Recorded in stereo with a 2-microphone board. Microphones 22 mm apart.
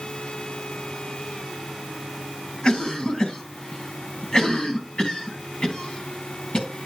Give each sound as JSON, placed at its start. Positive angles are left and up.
{"t": 2.6, "sound": "a cough", "side_deg": 45, "distance_m": 3.0}